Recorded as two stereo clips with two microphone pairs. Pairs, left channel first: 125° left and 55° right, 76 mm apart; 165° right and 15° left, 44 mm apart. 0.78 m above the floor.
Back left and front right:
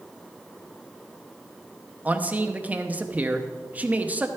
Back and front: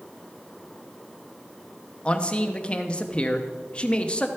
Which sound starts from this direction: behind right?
A man speaking, at 2.0 s.